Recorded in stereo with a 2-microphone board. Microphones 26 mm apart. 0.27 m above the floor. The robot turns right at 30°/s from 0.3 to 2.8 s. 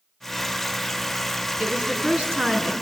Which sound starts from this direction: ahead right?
A woman speaking, at 1.6 s.